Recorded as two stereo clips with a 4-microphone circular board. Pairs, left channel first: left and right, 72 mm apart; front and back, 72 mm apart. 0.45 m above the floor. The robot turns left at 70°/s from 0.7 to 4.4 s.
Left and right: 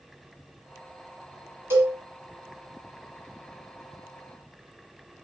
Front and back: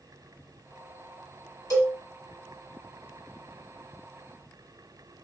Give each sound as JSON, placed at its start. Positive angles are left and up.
{"t": 1.7, "sound": "a cowbell", "azimuth_deg": -30, "distance_m": 1.3}